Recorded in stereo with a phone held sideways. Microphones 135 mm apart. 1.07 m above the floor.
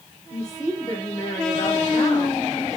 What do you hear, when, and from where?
0.3 s a woman speaking: 30° left (ahead or behind), 4 m; by 2.8 s 25° left (ahead or behind), 3 m